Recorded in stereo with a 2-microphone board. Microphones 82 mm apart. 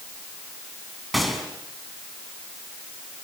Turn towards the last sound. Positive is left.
turn(degrees=0)  # may be behind; listen again after turning